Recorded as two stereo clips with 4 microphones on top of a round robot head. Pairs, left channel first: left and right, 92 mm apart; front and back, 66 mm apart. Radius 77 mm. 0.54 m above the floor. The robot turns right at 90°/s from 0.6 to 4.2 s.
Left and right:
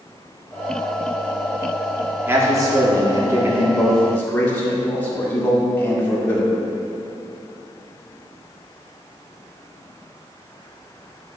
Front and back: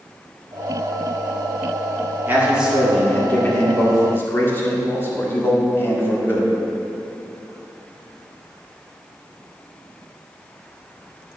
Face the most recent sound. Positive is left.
turn(degrees=30)